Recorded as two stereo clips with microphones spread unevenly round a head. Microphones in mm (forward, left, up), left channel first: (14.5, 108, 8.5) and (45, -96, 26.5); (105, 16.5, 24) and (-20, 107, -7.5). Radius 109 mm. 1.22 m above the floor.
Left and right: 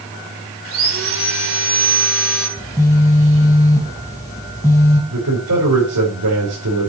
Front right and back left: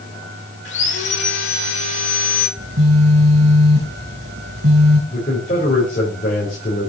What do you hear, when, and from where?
0.7 s sawing: 55° right, 3.5 m
2.6 s a phone buzzing: 175° left, 2 m
5.1 s a man speaking: 90° right, 5.5 m